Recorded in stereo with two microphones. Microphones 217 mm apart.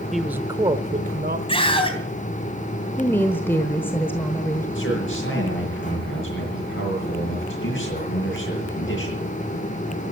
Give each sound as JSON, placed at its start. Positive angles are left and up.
{"t": 0.1, "sound": "a man speaking", "side_deg": 0, "distance_m": 0.8}
{"t": 1.5, "sound": "a scream", "side_deg": 25, "distance_m": 3.0}
{"t": 3.0, "sound": "a woman speaking", "side_deg": 10, "distance_m": 1.1}
{"t": 4.8, "sound": "a man speaking", "side_deg": 60, "distance_m": 7.0}